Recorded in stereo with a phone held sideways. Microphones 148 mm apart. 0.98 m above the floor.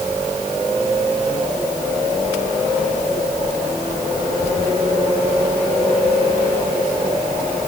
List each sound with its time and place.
Only background noise.